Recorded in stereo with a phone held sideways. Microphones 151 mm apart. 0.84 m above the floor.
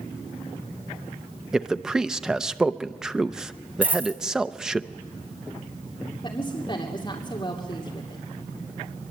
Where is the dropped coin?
15° right (ahead or behind), 1.8 m.